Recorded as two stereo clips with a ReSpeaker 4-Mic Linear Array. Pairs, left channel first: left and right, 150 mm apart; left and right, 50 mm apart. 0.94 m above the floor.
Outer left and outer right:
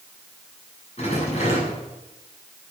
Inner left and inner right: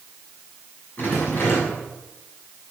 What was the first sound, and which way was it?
A rattle, 45° left (ahead or behind).